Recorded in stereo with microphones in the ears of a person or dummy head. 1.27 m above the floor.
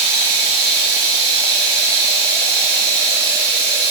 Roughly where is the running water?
Right.